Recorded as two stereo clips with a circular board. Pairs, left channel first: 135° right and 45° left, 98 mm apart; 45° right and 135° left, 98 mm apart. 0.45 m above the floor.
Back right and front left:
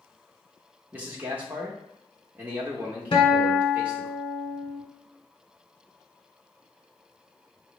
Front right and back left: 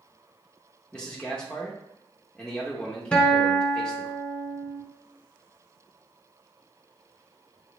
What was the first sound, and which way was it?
A man speaking, 15° left.